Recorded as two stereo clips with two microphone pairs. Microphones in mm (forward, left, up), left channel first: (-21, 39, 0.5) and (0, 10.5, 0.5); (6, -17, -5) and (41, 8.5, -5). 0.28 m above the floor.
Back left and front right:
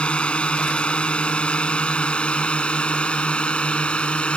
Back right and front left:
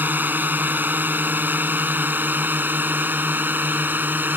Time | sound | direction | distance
0.0 | a drone | 70° left | ?